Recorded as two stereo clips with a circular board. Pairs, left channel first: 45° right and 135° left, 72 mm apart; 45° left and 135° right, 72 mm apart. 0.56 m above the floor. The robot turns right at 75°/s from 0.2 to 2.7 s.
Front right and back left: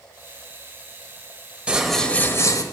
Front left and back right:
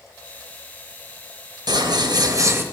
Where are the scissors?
150° right, 0.8 m; by 2.6 s 80° right, 0.8 m.